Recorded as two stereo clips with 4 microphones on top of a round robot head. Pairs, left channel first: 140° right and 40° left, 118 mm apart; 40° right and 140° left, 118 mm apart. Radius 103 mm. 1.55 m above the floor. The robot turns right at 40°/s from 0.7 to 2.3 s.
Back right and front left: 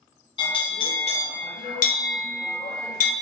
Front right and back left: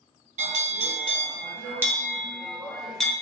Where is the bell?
170° left, 0.7 m; by 3.1 s 130° right, 0.7 m.